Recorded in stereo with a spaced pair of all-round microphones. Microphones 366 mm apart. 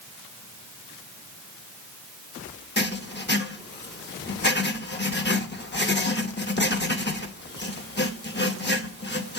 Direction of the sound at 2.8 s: 30° left (ahead or behind).